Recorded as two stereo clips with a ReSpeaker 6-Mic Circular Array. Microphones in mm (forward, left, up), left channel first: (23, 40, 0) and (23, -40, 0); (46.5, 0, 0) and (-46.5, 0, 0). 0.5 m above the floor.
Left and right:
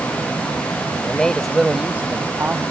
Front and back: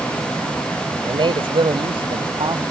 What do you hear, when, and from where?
1.1 s a man speaking: 160° left; by 2.6 s 150° right